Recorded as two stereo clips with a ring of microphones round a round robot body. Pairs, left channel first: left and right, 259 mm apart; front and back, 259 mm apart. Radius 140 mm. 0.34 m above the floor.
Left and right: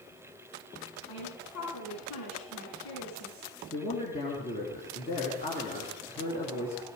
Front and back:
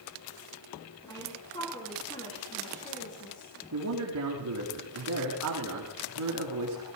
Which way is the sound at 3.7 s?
160° left.